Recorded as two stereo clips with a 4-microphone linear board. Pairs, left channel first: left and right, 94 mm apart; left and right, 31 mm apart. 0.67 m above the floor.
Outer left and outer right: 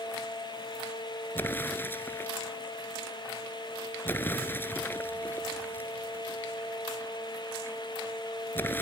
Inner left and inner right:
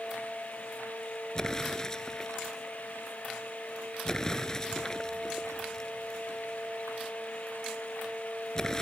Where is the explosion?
20° left (ahead or behind).